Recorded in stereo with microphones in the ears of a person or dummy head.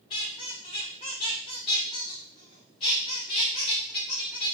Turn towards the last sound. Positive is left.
turn(degrees=20)  # may be behind; listen again after turning